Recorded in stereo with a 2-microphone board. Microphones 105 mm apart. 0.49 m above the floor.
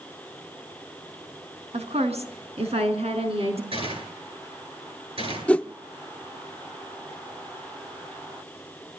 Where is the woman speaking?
75° right (ahead or behind), 4.5 m.